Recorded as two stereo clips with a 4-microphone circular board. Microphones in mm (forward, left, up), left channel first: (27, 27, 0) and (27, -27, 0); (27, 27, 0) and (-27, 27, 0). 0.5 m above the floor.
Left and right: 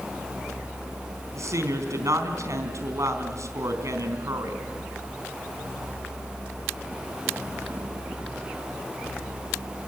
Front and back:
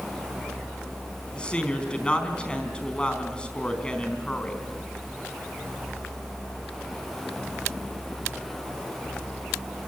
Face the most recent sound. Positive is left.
turn(degrees=-70)